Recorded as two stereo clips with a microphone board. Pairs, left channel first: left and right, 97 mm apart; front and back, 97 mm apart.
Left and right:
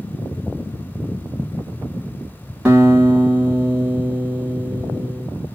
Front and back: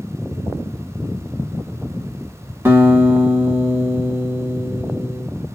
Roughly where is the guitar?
Behind right.